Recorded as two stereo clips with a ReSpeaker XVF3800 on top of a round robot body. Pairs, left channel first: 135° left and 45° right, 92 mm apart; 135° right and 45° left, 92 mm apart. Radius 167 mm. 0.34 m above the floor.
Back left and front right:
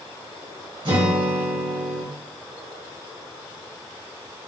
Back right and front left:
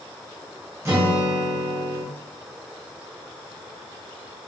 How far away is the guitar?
About 1.6 m.